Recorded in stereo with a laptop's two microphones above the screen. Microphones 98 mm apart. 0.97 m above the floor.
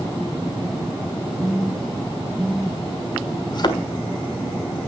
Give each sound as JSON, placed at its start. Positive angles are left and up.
{"t": 1.4, "sound": "a phone buzzing", "side_deg": -5, "distance_m": 4.5}
{"t": 3.5, "sound": "a thud", "side_deg": 45, "distance_m": 1.4}